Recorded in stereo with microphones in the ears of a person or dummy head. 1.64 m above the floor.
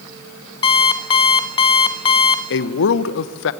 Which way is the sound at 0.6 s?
30° left (ahead or behind).